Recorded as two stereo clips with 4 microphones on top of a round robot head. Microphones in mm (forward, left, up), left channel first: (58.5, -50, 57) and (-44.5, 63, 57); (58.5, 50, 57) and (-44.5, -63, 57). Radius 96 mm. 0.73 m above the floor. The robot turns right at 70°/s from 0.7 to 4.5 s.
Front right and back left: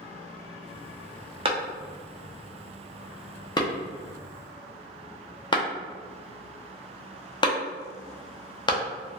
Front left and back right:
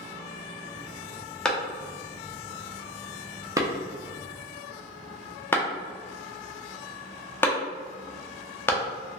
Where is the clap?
130° left, 0.6 m; by 8.8 s 20° right, 0.6 m.